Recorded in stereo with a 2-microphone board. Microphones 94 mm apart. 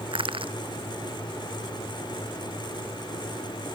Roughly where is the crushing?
Right.